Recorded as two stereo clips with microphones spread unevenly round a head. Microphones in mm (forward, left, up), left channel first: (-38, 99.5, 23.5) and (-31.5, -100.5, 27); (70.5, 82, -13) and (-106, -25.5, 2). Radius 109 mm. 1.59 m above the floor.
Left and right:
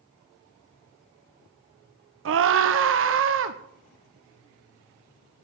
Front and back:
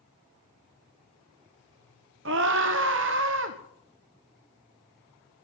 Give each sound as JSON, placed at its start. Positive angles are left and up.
{"t": 2.2, "sound": "a scream", "azimuth_deg": -110, "distance_m": 1.2}